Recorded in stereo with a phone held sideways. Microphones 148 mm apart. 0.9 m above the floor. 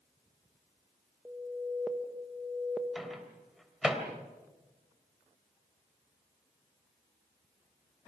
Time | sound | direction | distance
1.2 | an alarm | 10° right (ahead or behind) | 1.5 m
3.0 | a microwave | centre (ahead or behind) | 3 m